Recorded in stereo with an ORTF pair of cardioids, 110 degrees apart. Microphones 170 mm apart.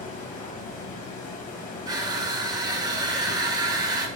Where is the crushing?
25° right, 0.8 m.